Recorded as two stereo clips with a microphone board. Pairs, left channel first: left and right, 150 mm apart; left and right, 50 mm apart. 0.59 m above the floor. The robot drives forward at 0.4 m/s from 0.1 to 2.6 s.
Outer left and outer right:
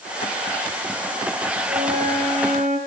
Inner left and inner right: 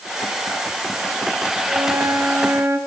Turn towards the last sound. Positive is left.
turn(degrees=-65)  # may be behind; listen again after turning